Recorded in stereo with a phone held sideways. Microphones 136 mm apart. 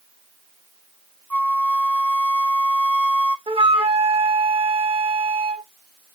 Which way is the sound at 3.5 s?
50° right (ahead or behind).